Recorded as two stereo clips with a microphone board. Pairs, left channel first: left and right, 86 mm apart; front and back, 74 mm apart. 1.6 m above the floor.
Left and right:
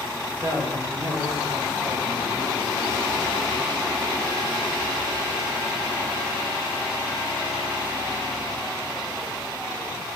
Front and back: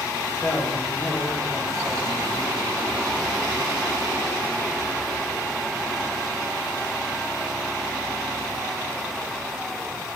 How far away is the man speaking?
About 3 m.